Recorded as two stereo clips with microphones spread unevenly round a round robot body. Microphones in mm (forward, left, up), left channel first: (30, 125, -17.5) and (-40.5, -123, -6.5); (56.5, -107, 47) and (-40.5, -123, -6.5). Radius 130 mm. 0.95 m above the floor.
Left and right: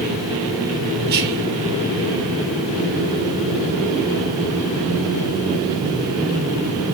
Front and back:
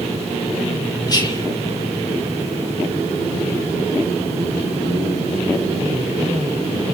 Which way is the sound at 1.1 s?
55° right.